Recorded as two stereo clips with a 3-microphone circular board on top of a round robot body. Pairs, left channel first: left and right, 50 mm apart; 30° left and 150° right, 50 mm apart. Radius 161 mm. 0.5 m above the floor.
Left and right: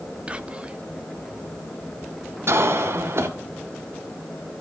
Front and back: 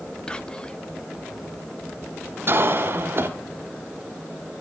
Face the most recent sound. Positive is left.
turn(degrees=-115)